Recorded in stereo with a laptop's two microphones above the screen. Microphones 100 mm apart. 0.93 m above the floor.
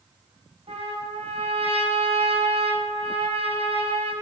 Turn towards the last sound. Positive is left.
turn(degrees=-80)